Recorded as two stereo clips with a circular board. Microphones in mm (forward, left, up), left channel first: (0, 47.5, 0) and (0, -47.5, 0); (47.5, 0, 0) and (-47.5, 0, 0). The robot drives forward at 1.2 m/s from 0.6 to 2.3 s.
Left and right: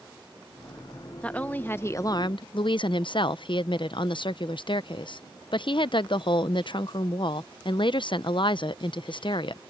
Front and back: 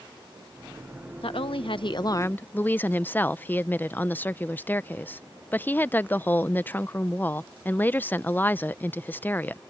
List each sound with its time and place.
1.2 s a woman speaking: 15° left; by 9.6 s 70° left